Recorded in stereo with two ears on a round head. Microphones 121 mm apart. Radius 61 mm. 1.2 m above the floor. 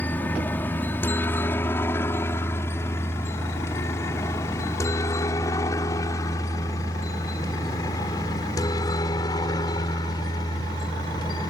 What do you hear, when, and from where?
0.0 s a helicopter: 15° left (ahead or behind); by 11.5 s 30° left (ahead or behind)